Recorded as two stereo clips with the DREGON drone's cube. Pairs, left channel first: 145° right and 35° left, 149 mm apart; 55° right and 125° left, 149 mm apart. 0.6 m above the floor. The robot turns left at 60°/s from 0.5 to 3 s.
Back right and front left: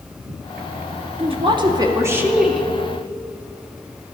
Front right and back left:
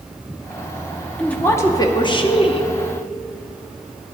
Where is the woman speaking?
25° left, 0.6 m; by 2.7 s 65° right, 0.6 m.